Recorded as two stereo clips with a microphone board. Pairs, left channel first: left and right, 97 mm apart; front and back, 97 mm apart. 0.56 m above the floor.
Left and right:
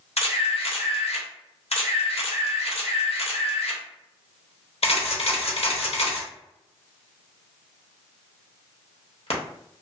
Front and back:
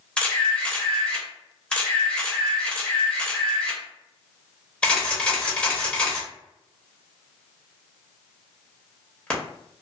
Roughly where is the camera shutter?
Left.